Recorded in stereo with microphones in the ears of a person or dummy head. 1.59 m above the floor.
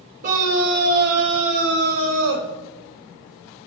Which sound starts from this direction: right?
A scream, at 0.2 s.